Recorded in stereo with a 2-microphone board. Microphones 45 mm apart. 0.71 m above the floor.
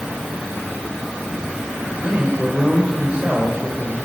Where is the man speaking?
20° right (ahead or behind), 3.5 m.